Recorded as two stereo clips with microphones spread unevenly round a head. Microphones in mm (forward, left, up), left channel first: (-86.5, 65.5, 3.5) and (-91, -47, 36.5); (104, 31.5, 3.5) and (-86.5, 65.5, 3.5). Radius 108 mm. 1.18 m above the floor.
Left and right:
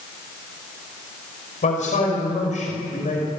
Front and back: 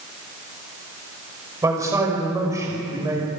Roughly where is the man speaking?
Left.